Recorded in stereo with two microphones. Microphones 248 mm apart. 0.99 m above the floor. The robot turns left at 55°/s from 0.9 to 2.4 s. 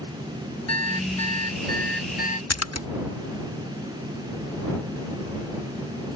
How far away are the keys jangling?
No keys jangling in this recording.